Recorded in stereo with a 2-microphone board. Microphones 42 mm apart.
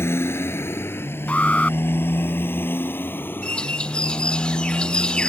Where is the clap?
I don't hear a clap.